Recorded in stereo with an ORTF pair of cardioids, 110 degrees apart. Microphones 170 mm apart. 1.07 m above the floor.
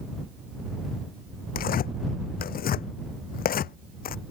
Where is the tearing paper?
60° left.